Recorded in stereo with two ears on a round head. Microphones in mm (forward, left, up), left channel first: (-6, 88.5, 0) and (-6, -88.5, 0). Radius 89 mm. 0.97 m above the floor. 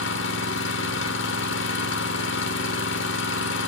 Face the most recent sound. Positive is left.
turn(degrees=65)  # may be behind; listen again after turning